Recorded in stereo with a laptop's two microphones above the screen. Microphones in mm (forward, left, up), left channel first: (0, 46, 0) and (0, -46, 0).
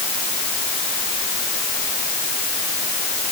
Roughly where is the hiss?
I don't hear a hiss.